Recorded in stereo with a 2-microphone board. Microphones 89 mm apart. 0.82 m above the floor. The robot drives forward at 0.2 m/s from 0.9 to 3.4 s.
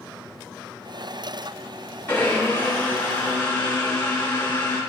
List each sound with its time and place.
2.1 s a blender: 20° left (ahead or behind), 7 m